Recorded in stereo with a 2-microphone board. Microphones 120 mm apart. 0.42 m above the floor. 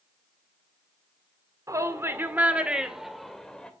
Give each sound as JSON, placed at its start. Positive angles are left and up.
{"t": 1.7, "sound": "a shout", "side_deg": -25, "distance_m": 1.5}